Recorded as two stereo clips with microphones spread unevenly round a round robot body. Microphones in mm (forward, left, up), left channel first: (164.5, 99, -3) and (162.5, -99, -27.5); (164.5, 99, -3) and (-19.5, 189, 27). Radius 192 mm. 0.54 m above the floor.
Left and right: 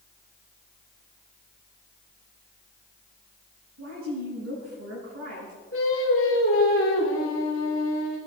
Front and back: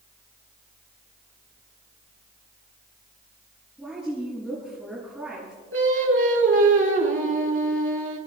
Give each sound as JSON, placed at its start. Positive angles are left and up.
{"t": 3.8, "sound": "a woman speaking", "azimuth_deg": -115, "distance_m": 7.0}
{"t": 5.7, "sound": "singing", "azimuth_deg": 140, "distance_m": 3.5}